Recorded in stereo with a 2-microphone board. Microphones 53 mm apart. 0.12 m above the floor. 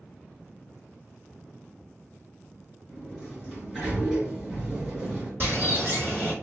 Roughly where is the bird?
Right.